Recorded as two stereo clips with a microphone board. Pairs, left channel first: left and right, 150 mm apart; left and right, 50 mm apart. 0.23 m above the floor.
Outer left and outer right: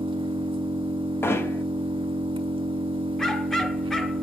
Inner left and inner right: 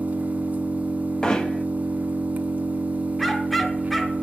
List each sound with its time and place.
0.0 s an engine running: 35° right (ahead or behind), 0.8 m
1.2 s hammering: 15° left (ahead or behind), 0.8 m
3.2 s a dog barking: 5° left (ahead or behind), 0.9 m